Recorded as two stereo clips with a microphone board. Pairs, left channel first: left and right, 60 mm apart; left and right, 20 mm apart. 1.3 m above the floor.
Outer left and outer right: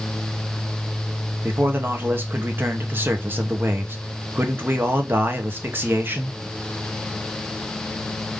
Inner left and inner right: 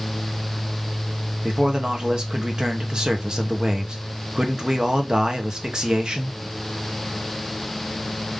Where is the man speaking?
35° right (ahead or behind), 0.8 m.